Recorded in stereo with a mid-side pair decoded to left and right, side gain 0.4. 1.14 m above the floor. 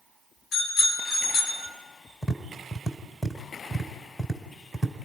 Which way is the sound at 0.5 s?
70° left.